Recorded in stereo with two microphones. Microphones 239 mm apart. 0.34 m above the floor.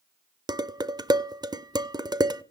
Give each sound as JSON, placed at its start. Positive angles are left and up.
{"t": 0.5, "sound": "dishes clattering", "side_deg": -15, "distance_m": 0.5}